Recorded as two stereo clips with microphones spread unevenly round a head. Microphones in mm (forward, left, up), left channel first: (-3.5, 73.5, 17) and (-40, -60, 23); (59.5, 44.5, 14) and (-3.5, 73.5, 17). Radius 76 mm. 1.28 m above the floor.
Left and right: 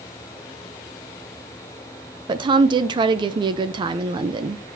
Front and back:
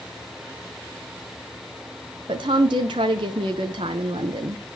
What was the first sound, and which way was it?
A woman speaking, 165° right.